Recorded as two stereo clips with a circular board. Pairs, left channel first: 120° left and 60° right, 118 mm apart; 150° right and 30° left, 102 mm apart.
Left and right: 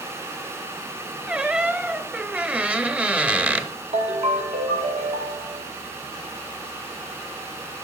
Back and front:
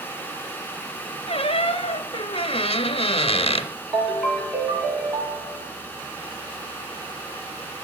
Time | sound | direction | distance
1.3 | a squeak | 135° right | 0.5 m
3.9 | a ringtone | 45° right | 1.6 m